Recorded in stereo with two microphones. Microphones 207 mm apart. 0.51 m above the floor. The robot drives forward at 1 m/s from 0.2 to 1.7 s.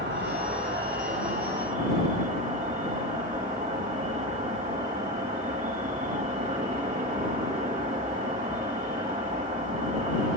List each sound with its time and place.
0.0 s an insect: 60° right (ahead or behind), 2.5 m; by 10.4 s 40° right (ahead or behind), 3.5 m